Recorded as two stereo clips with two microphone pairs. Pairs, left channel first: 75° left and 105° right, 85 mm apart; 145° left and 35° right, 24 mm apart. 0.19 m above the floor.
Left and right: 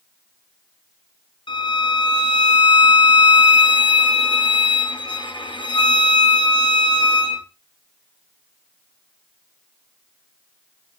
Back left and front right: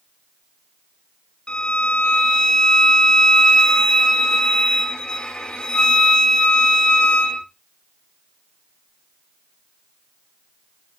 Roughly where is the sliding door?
No sliding door in this recording.